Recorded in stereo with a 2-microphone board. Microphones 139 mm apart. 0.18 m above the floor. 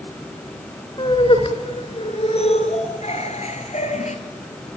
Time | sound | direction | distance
1.0 | laughter | 35° left (ahead or behind) | 3 m